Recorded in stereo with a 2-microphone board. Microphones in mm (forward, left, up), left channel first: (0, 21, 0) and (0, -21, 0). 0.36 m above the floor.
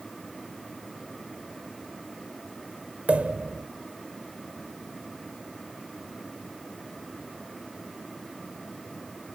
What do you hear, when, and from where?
3.1 s a pop: 30° right (ahead or behind), 1.0 m